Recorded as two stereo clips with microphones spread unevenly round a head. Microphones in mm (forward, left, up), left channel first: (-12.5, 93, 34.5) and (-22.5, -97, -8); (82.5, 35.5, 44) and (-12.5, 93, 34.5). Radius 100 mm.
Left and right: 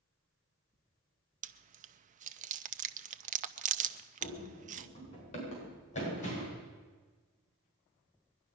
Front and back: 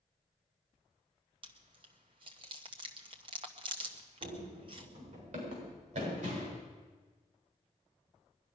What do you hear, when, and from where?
1.4 s chewing: 150° right, 0.6 m
4.2 s running footsteps: 145° left, 7 m; by 6.6 s 140° left, 9.5 m